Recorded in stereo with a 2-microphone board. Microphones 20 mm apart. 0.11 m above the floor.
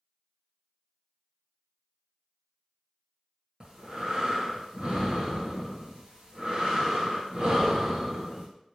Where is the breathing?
40° right (ahead or behind), 1.4 m.